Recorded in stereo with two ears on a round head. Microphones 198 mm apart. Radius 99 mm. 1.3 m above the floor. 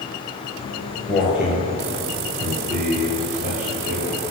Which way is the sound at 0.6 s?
10° left (ahead or behind).